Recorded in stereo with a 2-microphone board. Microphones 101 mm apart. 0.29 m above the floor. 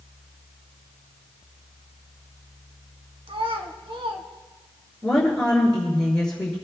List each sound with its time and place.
3.3 s a child speaking: 65° right (ahead or behind), 1.7 m
5.0 s a woman speaking: 5° left (ahead or behind), 5 m